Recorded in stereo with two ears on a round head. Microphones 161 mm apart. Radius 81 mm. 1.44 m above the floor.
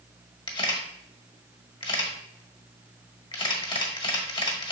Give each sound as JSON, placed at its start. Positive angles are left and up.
{"t": 0.5, "sound": "a camera shutter", "side_deg": 30, "distance_m": 1.5}